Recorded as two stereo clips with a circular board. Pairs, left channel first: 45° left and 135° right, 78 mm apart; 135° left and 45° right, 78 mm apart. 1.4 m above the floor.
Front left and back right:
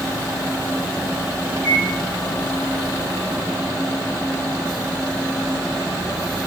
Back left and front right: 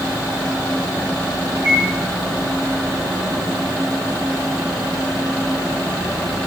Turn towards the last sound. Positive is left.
turn(degrees=-90)